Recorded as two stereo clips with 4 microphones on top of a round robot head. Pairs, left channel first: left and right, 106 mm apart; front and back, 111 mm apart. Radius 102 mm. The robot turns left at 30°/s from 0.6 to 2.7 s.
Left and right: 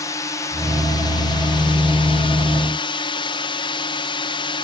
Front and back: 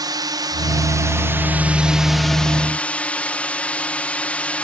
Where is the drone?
140° left; by 4.6 s 75° left.